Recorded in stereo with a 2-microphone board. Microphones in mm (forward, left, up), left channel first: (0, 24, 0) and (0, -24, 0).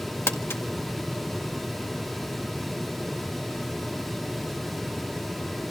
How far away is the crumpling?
About 1.7 m.